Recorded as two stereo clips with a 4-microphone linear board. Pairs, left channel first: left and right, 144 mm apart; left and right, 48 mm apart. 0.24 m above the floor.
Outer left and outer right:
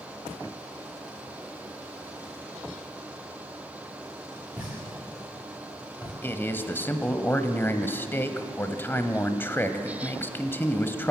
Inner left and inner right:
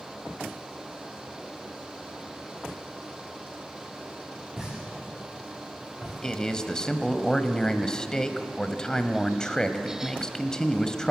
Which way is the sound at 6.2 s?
15° left (ahead or behind).